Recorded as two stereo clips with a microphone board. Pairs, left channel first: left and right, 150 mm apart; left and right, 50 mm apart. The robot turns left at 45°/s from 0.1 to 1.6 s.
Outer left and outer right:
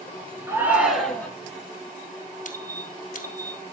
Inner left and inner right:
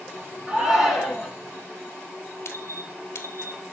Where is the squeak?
60° left (ahead or behind), 1.6 m.